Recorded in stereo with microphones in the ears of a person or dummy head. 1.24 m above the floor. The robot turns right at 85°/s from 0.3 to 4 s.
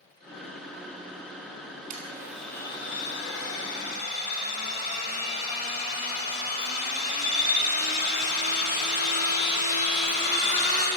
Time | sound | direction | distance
1.9 | a blender | 40° right | 4 m